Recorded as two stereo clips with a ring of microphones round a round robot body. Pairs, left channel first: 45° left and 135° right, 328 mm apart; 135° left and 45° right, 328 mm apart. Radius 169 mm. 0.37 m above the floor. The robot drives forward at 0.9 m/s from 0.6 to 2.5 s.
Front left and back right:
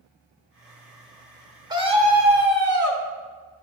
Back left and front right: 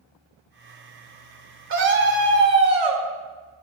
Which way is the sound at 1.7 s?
65° right.